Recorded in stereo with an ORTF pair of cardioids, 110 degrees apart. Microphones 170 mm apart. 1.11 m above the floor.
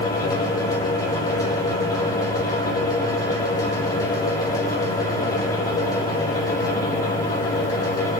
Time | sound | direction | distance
0.0 | a fan | 20° left | 6.5 m